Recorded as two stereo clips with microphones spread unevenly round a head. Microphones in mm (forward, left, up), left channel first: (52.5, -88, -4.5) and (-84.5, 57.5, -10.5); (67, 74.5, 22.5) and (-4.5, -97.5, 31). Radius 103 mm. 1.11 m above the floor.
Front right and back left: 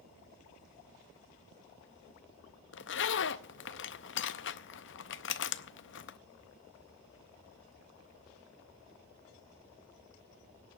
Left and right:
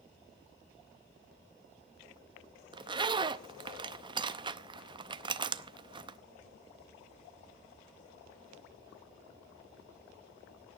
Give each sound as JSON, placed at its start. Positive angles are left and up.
{"t": 2.7, "sound": "a zipper", "azimuth_deg": -50, "distance_m": 0.6}